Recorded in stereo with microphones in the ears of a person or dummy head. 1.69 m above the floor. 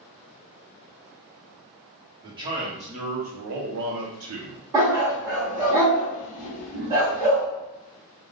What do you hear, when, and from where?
2.2 s a man speaking: 20° right (ahead or behind), 1.5 m; by 4.6 s 75° right (ahead or behind), 1.1 m
4.7 s a dog barking: 20° right (ahead or behind), 1.5 m